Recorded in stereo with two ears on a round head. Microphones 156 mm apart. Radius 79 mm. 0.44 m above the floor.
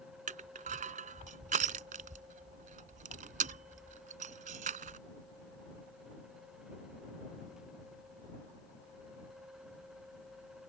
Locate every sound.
0.3 s crushing: 45° right (ahead or behind)